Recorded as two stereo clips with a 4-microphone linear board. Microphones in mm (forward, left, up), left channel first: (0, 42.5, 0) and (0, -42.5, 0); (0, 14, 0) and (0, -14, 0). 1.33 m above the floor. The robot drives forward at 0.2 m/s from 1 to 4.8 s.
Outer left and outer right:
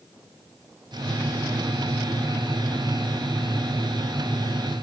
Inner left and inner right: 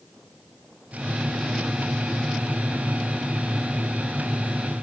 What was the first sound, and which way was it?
Only background noise.